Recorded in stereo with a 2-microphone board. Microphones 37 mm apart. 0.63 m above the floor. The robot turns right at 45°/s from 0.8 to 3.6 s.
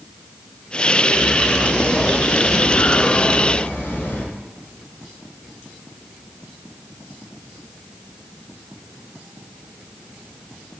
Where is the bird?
Straight ahead, 4.5 m; by 4.2 s 110° left, 4.5 m.